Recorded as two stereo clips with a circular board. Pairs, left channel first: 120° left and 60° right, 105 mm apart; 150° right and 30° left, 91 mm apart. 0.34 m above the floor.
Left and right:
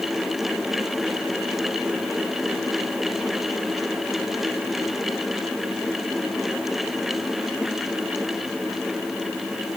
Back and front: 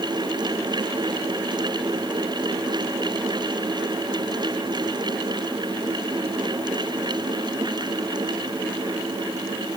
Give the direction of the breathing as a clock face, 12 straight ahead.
I don't hear breathing.